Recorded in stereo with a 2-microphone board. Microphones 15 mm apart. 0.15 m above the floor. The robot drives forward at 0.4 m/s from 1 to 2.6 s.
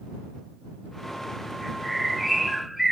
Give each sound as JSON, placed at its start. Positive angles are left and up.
{"t": 1.6, "sound": "a bird", "side_deg": -20, "distance_m": 0.7}